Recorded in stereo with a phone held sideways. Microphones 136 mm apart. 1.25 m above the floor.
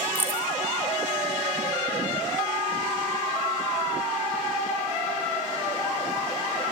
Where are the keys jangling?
15° right (ahead or behind), 3.5 m.